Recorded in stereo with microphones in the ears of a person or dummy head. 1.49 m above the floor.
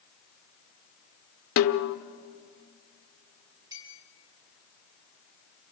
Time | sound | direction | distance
1.6 | a snare drum | 70° left (ahead or behind) | 1.1 m
3.7 | a clink | 20° right (ahead or behind) | 7 m